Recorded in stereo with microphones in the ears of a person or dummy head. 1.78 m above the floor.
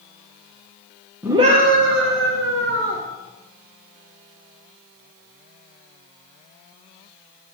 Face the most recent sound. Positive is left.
turn(degrees=-80)